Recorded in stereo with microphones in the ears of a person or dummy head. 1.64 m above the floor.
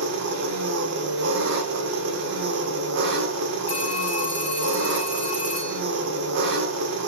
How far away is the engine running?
About 0.7 m.